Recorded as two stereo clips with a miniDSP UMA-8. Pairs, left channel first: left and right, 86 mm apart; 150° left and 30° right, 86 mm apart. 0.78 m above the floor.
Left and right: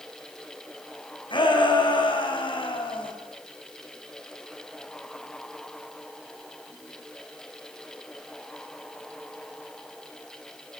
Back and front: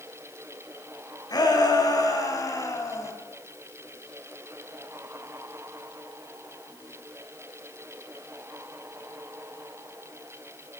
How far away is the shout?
About 6 m.